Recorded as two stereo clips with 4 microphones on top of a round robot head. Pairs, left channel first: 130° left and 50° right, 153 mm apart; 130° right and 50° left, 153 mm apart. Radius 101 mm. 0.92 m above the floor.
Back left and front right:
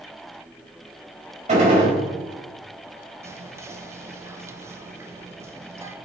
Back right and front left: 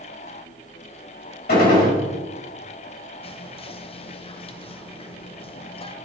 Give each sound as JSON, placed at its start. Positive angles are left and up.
{"t": 1.5, "sound": "a gunshot", "azimuth_deg": -100, "distance_m": 4.0}
{"t": 3.2, "sound": "whispering", "azimuth_deg": -115, "distance_m": 0.9}